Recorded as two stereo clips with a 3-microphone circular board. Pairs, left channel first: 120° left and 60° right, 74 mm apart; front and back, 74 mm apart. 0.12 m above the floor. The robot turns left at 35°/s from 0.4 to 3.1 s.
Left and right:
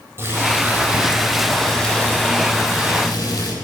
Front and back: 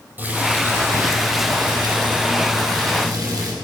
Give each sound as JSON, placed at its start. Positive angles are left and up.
{"t": 0.2, "sound": "boiling", "azimuth_deg": -115, "distance_m": 4.0}